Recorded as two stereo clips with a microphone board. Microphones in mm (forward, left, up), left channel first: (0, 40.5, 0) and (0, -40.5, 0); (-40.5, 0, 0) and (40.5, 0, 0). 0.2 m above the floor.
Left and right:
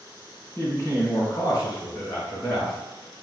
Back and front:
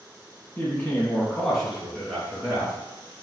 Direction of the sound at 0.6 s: 130° left.